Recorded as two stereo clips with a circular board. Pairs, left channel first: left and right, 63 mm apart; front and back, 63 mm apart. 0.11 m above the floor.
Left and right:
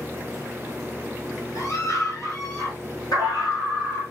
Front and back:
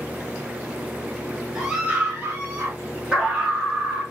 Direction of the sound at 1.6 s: 95° left.